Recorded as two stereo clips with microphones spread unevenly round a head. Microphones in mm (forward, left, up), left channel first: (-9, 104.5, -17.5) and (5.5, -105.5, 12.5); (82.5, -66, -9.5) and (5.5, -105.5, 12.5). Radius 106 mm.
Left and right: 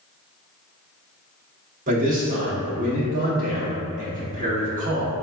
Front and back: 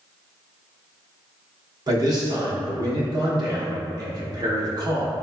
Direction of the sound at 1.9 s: 125° right.